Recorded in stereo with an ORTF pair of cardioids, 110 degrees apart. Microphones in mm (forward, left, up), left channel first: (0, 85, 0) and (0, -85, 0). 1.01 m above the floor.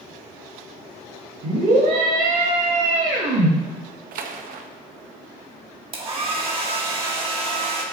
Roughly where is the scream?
Ahead right.